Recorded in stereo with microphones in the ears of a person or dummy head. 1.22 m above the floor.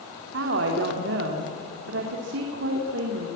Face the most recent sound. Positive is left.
turn(degrees=-70)  # may be behind; listen again after turning